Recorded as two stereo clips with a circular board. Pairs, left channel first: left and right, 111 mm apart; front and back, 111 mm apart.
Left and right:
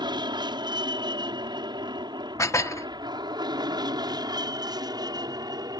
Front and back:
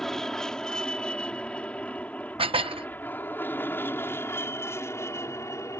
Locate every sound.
0.0 s an aircraft: 85° right; by 5.8 s 55° right
2.4 s dishes clattering: 150° left